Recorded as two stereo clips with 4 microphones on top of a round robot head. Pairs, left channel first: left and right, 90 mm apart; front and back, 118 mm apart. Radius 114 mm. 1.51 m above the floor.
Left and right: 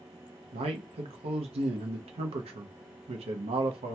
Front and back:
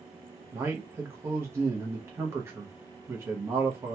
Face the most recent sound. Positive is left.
turn(degrees=-105)